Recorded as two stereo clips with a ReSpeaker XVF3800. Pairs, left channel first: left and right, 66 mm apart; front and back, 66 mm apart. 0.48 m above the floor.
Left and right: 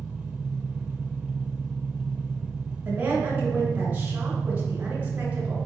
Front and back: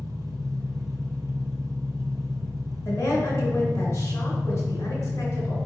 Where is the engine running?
165° right, 0.7 m.